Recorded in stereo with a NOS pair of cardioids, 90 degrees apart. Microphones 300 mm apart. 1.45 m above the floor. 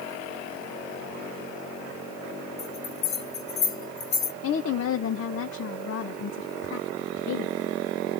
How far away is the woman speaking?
About 0.8 m.